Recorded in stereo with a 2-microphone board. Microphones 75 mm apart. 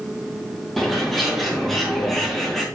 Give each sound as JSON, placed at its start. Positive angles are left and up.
{"t": 0.8, "sound": "a bird", "side_deg": 0, "distance_m": 3.0}